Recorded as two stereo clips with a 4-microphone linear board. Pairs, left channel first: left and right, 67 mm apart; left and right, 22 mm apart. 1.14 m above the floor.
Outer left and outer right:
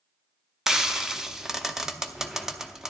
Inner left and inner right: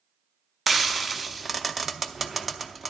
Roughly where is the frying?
Centre.